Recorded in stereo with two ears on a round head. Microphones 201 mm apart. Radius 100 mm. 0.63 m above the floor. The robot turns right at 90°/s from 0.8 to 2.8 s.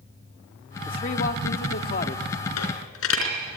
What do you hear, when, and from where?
0.9 s a man speaking: 25° left, 1.4 m; by 2.3 s 150° left, 1.4 m
2.6 s a dropped coin: 90° left, 4 m; by 3.4 s 65° left (ahead or behind), 4 m